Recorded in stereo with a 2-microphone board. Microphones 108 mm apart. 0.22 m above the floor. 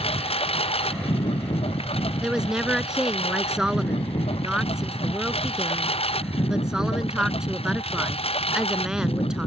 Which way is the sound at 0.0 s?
65° left (ahead or behind).